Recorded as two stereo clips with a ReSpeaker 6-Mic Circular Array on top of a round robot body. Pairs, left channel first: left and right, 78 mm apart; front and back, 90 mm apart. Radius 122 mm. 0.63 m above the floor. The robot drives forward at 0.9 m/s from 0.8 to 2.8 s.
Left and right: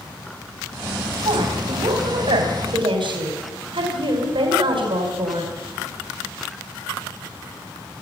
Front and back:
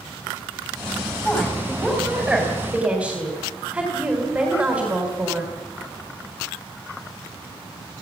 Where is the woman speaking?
80° right, 4 m; by 5.5 s 100° right, 4 m.